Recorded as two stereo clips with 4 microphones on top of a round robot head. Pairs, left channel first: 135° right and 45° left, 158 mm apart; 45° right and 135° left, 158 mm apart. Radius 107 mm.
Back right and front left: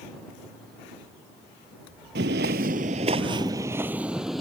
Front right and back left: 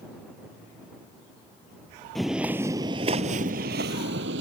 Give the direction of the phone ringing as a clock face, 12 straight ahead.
I don't hear a phone ringing.